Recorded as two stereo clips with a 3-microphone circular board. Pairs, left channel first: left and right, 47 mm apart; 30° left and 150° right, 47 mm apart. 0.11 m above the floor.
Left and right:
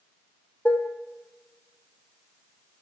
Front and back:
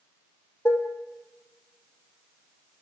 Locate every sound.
0.7 s dishes clattering: 45° left, 3 m